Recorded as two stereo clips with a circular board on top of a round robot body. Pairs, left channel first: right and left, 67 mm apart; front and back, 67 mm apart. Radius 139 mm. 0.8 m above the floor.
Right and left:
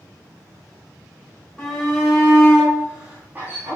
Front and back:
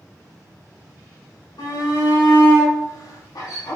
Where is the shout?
10° right, 4.5 m; by 3.8 s 35° left, 3 m.